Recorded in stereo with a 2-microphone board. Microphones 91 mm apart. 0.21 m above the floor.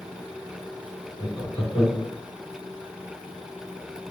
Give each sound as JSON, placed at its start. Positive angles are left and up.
{"t": 1.2, "sound": "laughter", "side_deg": 30, "distance_m": 2.5}